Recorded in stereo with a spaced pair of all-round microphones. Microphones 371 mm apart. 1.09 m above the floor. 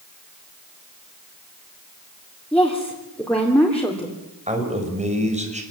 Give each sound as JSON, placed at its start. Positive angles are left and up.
{"t": 2.5, "sound": "a woman speaking", "side_deg": 5, "distance_m": 3.5}
{"t": 4.5, "sound": "a man speaking", "side_deg": -20, "distance_m": 4.5}